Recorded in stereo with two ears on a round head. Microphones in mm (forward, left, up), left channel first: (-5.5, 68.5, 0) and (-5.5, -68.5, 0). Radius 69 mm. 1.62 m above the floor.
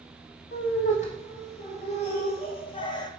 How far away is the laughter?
About 3 m.